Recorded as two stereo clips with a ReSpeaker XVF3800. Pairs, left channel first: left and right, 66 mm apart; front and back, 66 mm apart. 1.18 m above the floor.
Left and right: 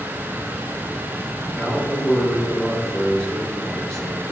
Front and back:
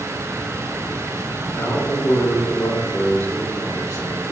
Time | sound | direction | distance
1.5 | a man speaking | 15° left | 3.5 m